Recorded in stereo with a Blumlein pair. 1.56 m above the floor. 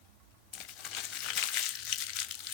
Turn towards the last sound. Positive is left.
turn(degrees=35)